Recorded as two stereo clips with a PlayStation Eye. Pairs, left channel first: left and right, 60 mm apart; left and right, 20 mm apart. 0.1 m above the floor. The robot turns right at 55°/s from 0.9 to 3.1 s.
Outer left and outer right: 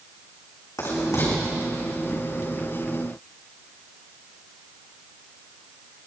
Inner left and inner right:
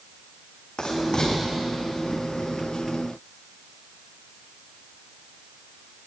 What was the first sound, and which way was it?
Writing, 75° left (ahead or behind).